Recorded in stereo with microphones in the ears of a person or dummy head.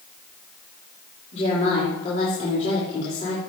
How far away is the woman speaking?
About 3.5 m.